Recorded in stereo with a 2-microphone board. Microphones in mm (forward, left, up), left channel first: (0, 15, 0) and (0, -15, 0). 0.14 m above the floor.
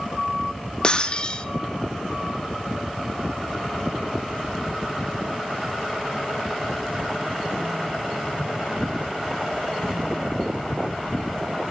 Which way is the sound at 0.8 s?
30° left (ahead or behind).